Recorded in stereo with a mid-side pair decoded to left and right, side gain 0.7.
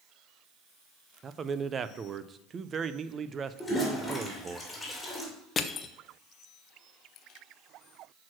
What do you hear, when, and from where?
1.2 s a man speaking: 35° right, 0.6 m
3.6 s a toilet flushing: 5° left, 3 m
5.6 s crushing: 25° left, 0.7 m